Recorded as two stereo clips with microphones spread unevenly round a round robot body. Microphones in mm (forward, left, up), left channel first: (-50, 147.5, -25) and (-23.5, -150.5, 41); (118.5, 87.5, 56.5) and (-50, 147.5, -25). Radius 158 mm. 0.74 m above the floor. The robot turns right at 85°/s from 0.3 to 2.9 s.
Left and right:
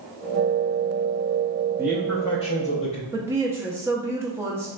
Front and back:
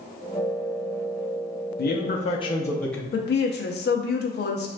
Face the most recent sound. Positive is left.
turn(degrees=10)